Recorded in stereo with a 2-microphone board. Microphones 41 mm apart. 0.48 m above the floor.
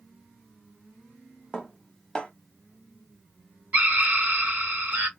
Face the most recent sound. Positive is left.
turn(degrees=-45)  # may be behind; listen again after turning